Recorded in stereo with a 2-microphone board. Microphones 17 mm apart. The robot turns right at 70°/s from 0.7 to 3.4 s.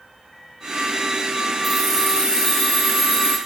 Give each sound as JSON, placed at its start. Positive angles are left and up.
{"t": 1.6, "sound": "keys jangling", "azimuth_deg": 0, "distance_m": 3.0}